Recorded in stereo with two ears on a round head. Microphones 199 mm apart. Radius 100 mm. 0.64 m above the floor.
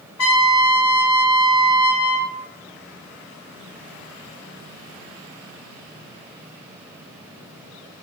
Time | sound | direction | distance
0.2 | a trumpet | 70° left (ahead or behind) | 0.9 m